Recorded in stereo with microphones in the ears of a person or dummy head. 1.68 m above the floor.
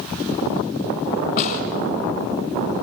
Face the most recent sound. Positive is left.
turn(degrees=50)  # may be behind; listen again after turning